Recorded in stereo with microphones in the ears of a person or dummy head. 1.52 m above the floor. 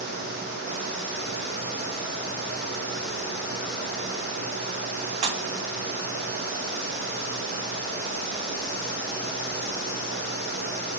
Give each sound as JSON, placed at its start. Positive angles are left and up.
{"t": 5.2, "sound": "a pop", "side_deg": -35, "distance_m": 0.5}